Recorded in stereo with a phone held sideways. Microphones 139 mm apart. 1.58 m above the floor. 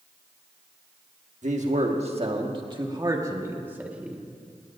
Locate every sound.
1.4 s a man speaking: 60° right (ahead or behind), 1.7 m; by 4.2 s 5° right (ahead or behind), 1.8 m